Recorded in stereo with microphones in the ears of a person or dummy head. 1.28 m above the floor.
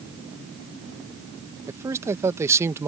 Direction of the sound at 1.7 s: 15° right (ahead or behind).